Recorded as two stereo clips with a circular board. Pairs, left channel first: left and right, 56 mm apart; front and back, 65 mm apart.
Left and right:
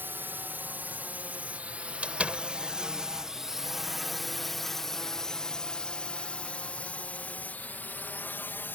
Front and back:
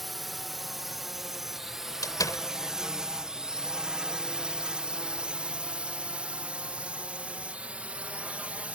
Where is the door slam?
25° right.